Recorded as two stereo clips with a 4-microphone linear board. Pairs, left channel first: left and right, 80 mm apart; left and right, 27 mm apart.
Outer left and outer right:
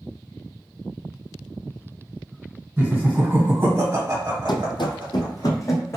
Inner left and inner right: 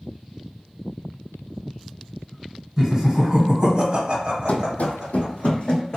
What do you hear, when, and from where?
2.8 s laughter: 15° right (ahead or behind), 1.3 m; by 5.5 s 25° right (ahead or behind), 1.4 m
4.5 s running footsteps: 70° left (ahead or behind), 0.5 m; by 6.0 s 35° left (ahead or behind), 0.9 m